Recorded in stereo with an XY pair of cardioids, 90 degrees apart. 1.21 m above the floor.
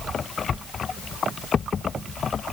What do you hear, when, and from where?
Only background noise.